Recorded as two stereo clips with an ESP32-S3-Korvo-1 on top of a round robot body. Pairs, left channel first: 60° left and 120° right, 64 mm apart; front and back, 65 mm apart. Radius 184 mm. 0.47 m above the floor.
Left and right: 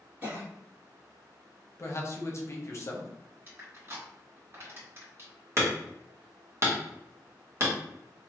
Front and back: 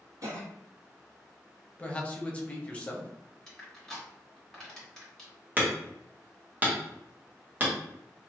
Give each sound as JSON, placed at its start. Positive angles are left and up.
{"t": 0.2, "sound": "a cough", "azimuth_deg": 180, "distance_m": 1.9}
{"t": 1.8, "sound": "a man speaking", "azimuth_deg": 65, "distance_m": 1.0}
{"t": 3.5, "sound": "crushing", "azimuth_deg": -80, "distance_m": 1.9}
{"t": 5.6, "sound": "hammering", "azimuth_deg": -130, "distance_m": 1.4}